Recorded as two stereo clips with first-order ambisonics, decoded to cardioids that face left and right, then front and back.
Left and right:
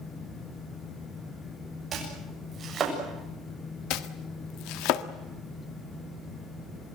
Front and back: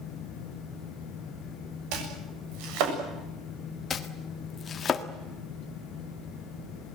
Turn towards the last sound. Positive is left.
turn(degrees=65)